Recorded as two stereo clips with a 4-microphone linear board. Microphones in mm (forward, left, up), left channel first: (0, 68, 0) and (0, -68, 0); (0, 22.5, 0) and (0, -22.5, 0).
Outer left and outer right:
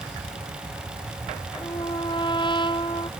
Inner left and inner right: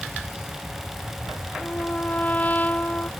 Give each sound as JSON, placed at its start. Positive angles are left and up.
{"t": 1.6, "sound": "a trumpet", "side_deg": 35}